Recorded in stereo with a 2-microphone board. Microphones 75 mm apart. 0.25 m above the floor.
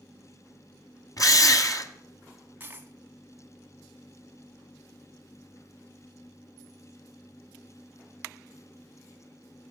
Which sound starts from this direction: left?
A drill, at 1.2 s.